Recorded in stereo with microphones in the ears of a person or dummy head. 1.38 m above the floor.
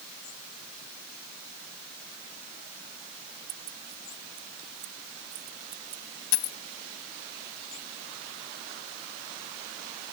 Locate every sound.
3.5 s keys jangling: 40° right (ahead or behind)
6.3 s a dropped coin: 70° left (ahead or behind)